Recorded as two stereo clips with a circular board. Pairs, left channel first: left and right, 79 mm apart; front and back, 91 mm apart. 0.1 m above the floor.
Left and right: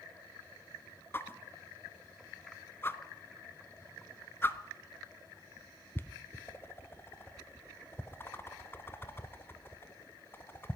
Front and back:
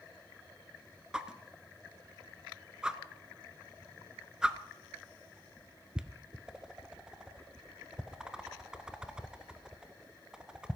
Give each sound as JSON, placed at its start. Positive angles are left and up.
{"t": 1.1, "sound": "a whoosh", "azimuth_deg": 105, "distance_m": 0.6}